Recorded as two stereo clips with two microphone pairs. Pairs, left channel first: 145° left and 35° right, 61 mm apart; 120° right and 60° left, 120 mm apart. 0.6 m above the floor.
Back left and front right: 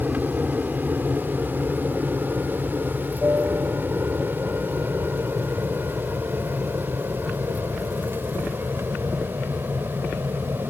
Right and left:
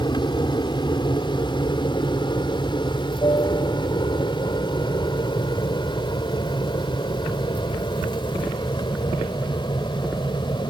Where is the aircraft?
90° right; by 10.7 s 75° right.